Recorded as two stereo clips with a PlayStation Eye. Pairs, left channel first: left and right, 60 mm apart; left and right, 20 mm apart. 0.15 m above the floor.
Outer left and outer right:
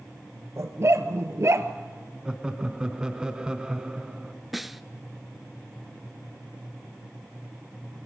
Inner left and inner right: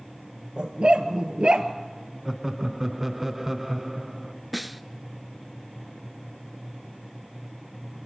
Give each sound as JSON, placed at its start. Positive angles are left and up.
{"t": 0.6, "sound": "a dog barking", "side_deg": -50, "distance_m": 1.5}
{"t": 2.2, "sound": "laughter", "side_deg": -15, "distance_m": 1.3}
{"t": 4.5, "sound": "a snare drum", "side_deg": 0, "distance_m": 0.5}